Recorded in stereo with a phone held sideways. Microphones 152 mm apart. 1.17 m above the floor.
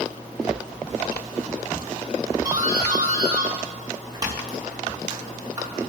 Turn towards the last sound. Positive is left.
turn(degrees=-25)  # may be behind; listen again after turning